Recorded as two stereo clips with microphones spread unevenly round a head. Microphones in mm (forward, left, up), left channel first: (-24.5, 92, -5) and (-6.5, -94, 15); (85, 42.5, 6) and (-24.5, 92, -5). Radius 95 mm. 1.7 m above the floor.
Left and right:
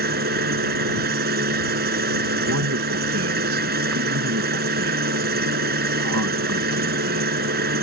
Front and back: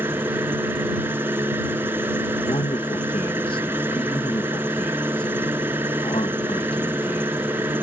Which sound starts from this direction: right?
A man speaking, at 2.4 s.